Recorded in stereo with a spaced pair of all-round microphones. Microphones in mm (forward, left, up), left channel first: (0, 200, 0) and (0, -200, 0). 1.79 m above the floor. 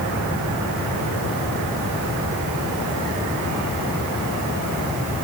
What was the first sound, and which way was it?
Only background noise.